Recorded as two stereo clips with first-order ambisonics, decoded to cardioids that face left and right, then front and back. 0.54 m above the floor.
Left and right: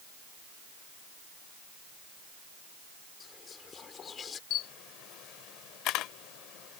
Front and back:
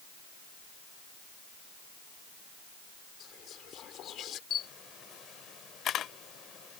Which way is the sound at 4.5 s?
55° left.